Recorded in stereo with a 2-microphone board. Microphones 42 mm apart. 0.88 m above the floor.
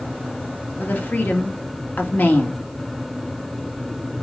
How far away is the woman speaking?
About 2 m.